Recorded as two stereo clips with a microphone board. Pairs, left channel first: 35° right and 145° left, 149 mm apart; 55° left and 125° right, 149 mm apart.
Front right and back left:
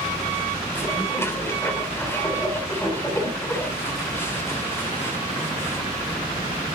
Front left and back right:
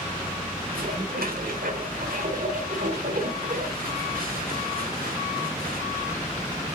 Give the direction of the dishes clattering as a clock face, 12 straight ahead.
4 o'clock.